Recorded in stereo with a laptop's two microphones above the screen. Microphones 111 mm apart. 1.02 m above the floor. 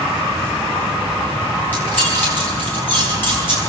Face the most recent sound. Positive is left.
turn(degrees=15)  # may be behind; listen again after turning